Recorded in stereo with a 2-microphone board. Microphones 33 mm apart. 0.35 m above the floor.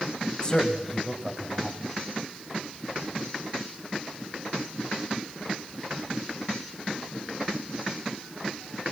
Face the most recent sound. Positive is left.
turn(degrees=-20)  # may be behind; listen again after turning